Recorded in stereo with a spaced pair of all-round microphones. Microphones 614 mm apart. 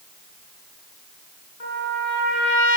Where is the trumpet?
75° left (ahead or behind), 3.5 m.